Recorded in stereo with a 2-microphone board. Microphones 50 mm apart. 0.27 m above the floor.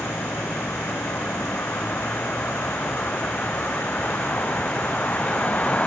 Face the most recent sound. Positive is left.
turn(degrees=30)  # may be behind; listen again after turning